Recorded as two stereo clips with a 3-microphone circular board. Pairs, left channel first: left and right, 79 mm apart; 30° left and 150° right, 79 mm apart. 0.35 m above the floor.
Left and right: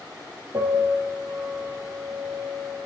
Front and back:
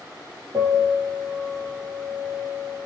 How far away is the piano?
About 4.5 m.